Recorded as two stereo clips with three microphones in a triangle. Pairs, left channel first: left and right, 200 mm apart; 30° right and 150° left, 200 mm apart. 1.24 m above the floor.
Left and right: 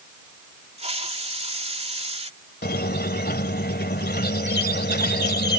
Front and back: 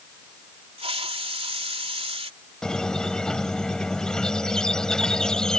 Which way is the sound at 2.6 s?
55° left.